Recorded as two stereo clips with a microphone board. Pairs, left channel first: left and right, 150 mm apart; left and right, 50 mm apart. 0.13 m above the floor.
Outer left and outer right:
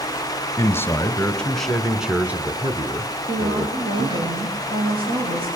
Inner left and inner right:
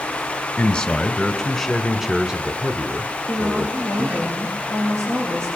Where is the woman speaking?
75° right (ahead or behind), 6.5 m.